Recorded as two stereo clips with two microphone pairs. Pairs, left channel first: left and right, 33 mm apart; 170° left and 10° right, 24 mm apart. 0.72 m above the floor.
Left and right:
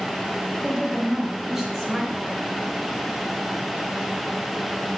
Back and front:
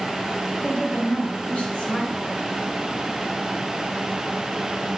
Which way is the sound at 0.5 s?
170° right.